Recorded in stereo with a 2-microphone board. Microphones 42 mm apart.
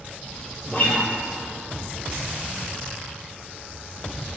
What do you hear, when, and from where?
0.7 s a guitar: 40° left (ahead or behind), 0.7 m